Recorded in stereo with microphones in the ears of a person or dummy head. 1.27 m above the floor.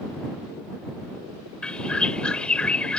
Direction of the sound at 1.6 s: 10° left (ahead or behind).